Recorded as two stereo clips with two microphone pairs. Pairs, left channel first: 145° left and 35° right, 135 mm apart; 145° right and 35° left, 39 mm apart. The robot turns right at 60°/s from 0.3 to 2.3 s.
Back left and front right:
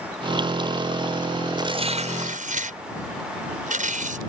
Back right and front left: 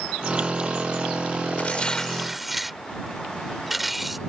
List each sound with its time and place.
1.6 s tearing paper: 95° right; by 4.2 s 50° right